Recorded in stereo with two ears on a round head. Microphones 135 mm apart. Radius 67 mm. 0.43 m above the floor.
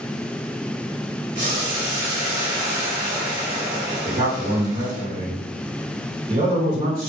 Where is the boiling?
30° right (ahead or behind), 2.5 m.